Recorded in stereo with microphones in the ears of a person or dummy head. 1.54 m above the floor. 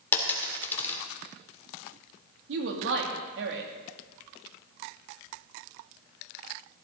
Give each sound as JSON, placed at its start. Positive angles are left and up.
{"t": 0.1, "sound": "a dropped coin", "side_deg": 10, "distance_m": 2.0}
{"t": 2.5, "sound": "a woman speaking", "side_deg": -70, "distance_m": 2.5}